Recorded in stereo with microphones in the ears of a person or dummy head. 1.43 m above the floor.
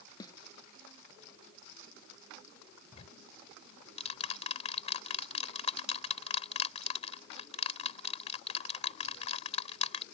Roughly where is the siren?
I don't hear a siren.